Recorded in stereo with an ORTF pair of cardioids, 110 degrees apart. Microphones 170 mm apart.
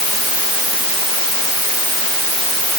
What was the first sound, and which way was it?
Only background noise.